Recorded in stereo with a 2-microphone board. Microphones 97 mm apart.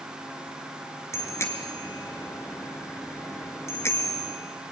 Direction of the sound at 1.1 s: 25° left (ahead or behind).